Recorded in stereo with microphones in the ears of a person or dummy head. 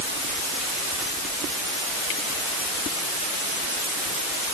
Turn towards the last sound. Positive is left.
No sound to turn to.